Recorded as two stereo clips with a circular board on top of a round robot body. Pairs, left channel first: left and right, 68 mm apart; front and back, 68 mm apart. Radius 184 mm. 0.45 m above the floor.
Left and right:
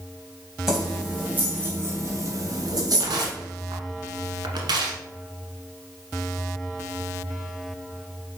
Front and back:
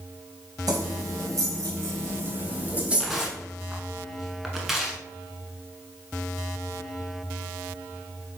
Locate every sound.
0.7 s keys jangling: 175° right, 3 m; by 3.3 s 100° right, 3 m
3.0 s tearing paper: 90° right, 1.1 m